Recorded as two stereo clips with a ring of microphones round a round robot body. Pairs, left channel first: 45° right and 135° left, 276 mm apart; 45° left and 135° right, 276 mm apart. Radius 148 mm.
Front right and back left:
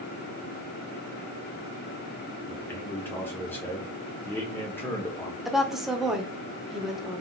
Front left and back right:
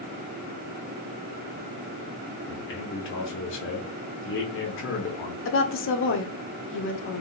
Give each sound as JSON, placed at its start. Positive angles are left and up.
{"t": 2.5, "sound": "a man speaking", "azimuth_deg": 35, "distance_m": 1.3}
{"t": 5.5, "sound": "a woman speaking", "azimuth_deg": 45, "distance_m": 1.1}